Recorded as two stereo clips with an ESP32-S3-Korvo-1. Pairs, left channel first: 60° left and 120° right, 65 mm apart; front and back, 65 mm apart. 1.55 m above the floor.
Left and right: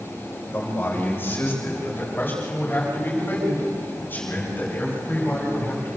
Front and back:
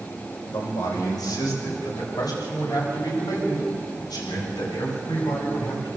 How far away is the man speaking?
About 7.5 m.